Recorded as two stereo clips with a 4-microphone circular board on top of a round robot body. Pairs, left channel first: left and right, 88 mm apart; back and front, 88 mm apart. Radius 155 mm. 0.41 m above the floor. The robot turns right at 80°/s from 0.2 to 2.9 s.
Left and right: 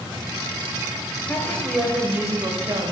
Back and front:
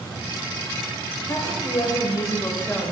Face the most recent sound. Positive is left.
turn(degrees=-95)